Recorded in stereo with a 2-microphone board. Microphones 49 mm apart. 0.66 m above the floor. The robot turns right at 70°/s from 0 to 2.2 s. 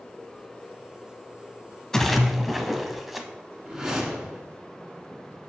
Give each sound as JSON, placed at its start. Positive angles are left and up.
{"t": 1.9, "sound": "a splash", "side_deg": 10, "distance_m": 0.6}
{"t": 3.6, "sound": "a whoosh", "side_deg": -10, "distance_m": 1.2}